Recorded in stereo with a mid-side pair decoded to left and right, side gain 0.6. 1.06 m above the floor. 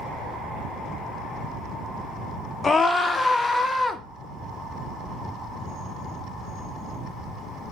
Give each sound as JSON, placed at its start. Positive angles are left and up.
{"t": 2.6, "sound": "a scream", "azimuth_deg": 25, "distance_m": 0.6}